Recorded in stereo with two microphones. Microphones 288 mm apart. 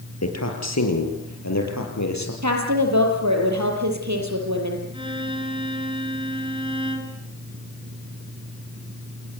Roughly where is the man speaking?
Left.